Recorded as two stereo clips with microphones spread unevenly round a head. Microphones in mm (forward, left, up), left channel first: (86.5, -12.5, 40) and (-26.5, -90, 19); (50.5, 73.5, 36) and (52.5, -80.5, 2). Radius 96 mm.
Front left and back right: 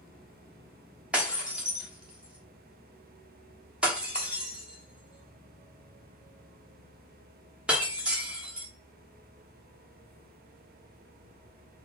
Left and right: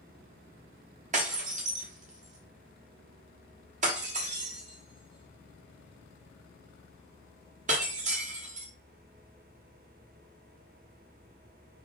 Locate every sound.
1.1 s breaking glass: 55° right, 1.3 m